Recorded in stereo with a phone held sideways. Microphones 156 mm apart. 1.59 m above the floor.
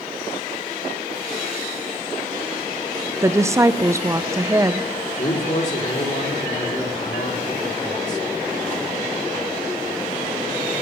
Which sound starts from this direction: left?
A man speaking, at 5.2 s.